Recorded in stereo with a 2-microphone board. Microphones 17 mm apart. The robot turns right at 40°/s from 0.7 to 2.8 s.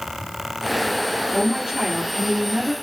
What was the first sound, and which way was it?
A woman speaking, 125° right.